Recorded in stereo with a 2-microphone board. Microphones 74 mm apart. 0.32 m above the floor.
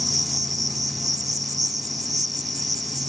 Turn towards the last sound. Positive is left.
turn(degrees=-50)  # may be behind; listen again after turning